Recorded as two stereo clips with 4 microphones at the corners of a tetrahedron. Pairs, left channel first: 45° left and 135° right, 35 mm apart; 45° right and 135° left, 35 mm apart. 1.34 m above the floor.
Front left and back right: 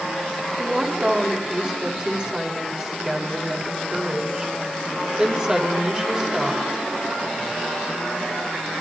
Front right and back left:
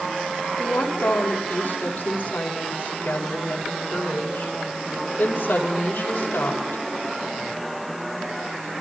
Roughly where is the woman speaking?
Right.